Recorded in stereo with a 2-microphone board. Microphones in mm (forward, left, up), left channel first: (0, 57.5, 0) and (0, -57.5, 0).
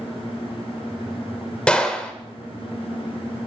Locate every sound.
1.7 s a gunshot: 10° left (ahead or behind), 1.2 m